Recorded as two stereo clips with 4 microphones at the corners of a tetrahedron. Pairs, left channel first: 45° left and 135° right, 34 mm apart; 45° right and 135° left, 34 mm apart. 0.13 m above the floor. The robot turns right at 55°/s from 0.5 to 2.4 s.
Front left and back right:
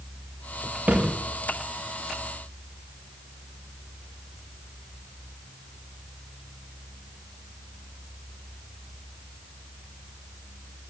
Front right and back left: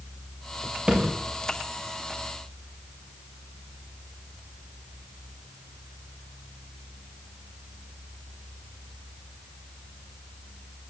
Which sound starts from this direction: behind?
A thud, at 0.9 s.